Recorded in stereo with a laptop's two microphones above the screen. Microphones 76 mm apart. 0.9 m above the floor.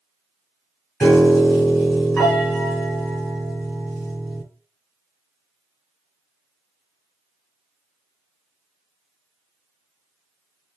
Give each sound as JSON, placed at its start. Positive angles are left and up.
{"t": 1.0, "sound": "a piano", "side_deg": 10, "distance_m": 3.5}